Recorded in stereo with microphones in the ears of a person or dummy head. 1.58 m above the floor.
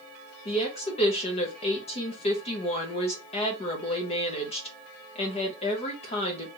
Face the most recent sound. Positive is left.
turn(degrees=35)  # may be behind; listen again after turning